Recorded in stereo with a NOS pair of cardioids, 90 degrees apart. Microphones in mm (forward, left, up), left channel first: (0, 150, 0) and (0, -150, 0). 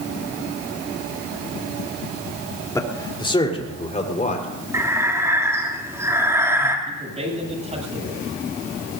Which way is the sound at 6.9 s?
20° right.